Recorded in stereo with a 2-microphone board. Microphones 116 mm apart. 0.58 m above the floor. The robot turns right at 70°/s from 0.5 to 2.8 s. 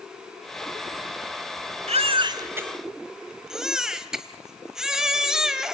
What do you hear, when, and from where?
1.9 s a baby crying: 70° right, 1.6 m; by 5.7 s 5° right, 1.6 m